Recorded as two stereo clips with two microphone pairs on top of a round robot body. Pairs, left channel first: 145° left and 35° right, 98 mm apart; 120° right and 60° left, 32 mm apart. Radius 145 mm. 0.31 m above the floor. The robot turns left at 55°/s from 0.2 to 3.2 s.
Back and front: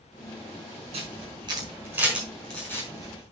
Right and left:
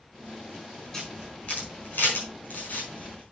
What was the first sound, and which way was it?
A camera shutter, 45° right.